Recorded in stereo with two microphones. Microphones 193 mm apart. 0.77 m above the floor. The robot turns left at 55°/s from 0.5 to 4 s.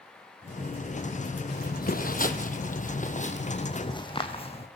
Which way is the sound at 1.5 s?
60° left (ahead or behind).